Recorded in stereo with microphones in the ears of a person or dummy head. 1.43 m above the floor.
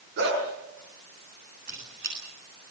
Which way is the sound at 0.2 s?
60° right (ahead or behind).